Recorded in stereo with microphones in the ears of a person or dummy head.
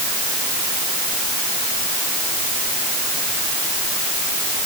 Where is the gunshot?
No gunshot in this recording.